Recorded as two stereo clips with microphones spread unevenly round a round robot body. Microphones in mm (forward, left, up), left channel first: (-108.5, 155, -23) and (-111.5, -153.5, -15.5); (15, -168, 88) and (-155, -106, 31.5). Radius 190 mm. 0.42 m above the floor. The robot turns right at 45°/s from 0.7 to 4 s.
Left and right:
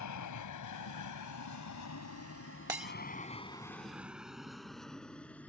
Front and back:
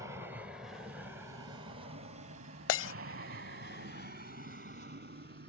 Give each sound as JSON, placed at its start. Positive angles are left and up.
{"t": 0.0, "sound": "an aircraft", "azimuth_deg": 95}
{"t": 2.7, "sound": "breaking glass", "azimuth_deg": -10}